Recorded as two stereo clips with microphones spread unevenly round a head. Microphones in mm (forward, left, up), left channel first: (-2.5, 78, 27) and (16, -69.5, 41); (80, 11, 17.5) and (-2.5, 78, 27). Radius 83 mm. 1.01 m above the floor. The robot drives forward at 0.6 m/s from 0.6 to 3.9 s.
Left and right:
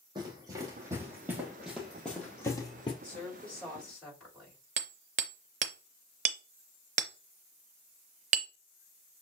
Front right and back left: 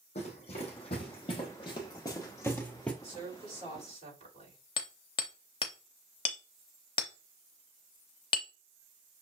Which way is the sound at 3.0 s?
Straight behind.